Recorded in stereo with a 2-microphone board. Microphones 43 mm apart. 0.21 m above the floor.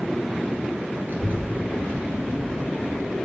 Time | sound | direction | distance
1.1 | a child speaking | 50° right (ahead or behind) | 2.5 m